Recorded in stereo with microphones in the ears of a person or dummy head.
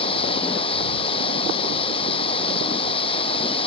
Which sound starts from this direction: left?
Running water, at 0.0 s.